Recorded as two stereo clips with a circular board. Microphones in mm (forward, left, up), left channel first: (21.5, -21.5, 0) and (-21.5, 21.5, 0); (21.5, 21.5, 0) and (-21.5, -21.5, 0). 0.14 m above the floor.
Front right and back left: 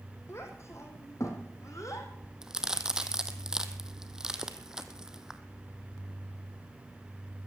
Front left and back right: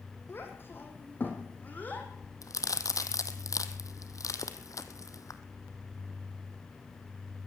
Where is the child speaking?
5° right, 4 m; by 2.1 s 20° right, 4 m.